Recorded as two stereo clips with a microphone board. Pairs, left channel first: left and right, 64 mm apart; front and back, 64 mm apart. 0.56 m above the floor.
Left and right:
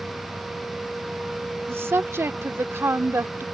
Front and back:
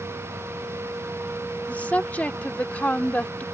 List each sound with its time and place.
1.7 s a woman speaking: 60° right